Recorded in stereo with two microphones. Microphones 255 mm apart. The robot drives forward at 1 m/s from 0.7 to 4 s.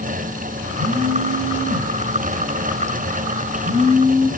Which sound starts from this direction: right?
A phone buzzing, at 0.8 s.